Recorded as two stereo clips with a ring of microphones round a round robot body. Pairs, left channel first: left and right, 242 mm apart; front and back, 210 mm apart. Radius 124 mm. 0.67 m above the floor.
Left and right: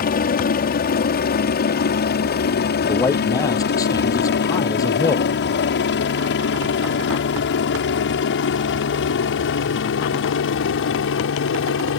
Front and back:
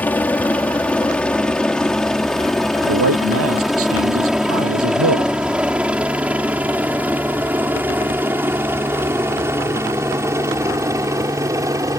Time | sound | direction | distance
0.0 | a helicopter | 75° left | ?
2.9 | a man speaking | 165° left | ?